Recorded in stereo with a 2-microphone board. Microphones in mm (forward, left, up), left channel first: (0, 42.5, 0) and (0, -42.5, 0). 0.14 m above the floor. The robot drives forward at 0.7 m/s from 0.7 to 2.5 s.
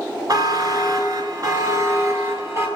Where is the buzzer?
50° right (ahead or behind), 1.1 m; by 2.7 s 30° right (ahead or behind), 1.6 m.